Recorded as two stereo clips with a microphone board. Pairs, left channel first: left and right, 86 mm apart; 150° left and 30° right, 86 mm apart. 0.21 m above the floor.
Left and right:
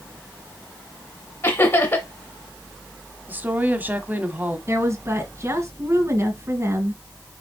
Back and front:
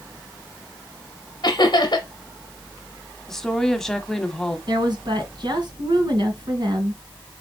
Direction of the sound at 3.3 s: 130° right.